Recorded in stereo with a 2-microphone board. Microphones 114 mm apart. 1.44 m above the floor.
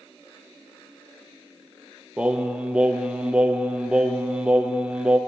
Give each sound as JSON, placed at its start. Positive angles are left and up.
{"t": 2.2, "sound": "singing", "side_deg": -10, "distance_m": 0.6}